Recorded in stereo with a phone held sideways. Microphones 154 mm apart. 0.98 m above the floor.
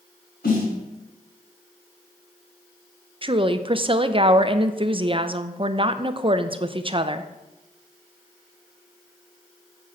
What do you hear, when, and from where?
0.4 s a snare drum: 85° left, 4 m
3.2 s a woman speaking: 35° right (ahead or behind), 0.5 m